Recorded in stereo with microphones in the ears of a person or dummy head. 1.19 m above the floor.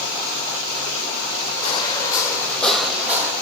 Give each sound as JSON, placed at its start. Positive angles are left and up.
{"t": 1.6, "sound": "footsteps", "side_deg": 35, "distance_m": 1.9}